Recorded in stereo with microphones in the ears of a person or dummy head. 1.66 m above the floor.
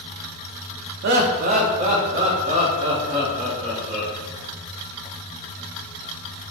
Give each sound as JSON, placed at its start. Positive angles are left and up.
{"t": 1.0, "sound": "laughter", "side_deg": -65, "distance_m": 0.5}